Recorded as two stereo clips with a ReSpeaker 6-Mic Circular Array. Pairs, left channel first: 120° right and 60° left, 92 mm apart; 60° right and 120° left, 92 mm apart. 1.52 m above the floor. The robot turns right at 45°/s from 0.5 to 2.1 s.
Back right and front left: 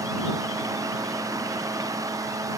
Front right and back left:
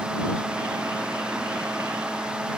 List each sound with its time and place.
Only background noise.